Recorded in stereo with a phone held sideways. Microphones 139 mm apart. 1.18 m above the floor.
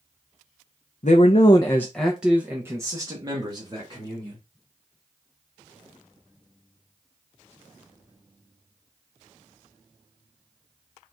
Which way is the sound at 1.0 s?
65° left (ahead or behind).